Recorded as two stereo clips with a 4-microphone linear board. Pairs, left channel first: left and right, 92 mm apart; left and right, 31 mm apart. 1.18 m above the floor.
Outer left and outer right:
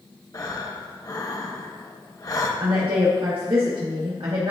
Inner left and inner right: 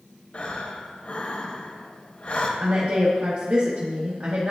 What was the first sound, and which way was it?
Breathing, 40° left (ahead or behind).